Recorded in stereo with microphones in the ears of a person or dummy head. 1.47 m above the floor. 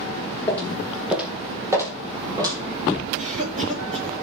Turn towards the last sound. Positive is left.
turn(degrees=-35)  # may be behind; listen again after turning